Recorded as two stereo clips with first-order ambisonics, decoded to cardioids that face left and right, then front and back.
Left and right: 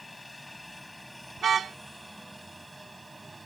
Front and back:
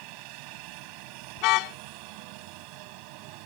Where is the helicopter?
175° left; by 3.5 s 170° right.